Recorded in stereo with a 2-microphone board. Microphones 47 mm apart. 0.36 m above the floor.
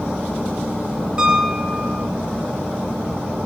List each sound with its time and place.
1.2 s a piano: 35° right (ahead or behind), 1.8 m